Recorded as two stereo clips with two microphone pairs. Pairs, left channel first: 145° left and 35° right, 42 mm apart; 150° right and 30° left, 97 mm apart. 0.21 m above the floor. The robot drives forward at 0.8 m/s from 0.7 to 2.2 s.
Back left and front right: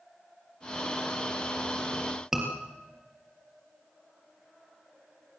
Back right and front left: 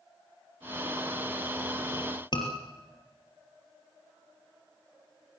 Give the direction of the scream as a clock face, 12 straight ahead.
4 o'clock.